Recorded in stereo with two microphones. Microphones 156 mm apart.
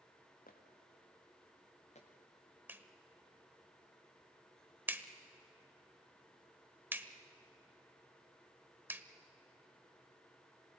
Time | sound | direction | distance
0.5 | footsteps | 65° left (ahead or behind) | 3 m
2.7 | a clap | 15° right (ahead or behind) | 0.9 m